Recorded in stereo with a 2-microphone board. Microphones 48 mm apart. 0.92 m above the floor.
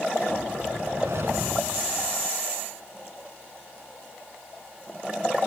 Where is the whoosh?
70° right (ahead or behind).